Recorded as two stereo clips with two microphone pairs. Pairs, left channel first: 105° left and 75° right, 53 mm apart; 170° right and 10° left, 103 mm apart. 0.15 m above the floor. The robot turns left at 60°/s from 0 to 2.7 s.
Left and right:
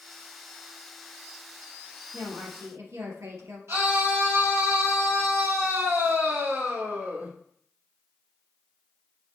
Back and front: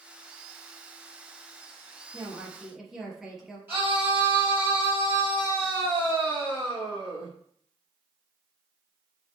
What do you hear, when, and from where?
2.1 s a woman speaking: 40° right, 3.5 m; by 3.6 s 75° right, 3.5 m
3.7 s a scream: 55° right, 5 m